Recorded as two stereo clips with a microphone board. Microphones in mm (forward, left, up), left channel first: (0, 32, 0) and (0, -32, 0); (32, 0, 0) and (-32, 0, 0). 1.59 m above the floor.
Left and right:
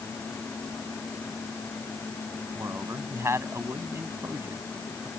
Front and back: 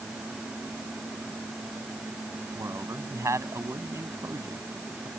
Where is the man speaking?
140° right.